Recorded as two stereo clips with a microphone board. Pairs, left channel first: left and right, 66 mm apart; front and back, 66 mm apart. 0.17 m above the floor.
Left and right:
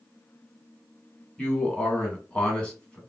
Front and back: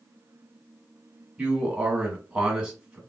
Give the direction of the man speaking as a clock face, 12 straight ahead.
8 o'clock.